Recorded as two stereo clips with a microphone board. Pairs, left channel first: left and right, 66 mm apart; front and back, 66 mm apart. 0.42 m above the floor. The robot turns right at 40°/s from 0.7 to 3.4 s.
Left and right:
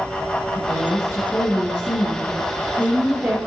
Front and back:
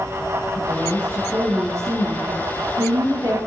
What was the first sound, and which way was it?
A woman speaking, 115° left.